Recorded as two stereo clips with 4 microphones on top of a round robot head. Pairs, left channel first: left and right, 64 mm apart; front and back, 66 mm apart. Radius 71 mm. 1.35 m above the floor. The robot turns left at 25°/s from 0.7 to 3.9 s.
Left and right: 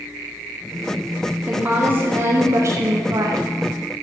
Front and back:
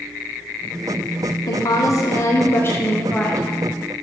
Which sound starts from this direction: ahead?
A woman speaking, at 1.5 s.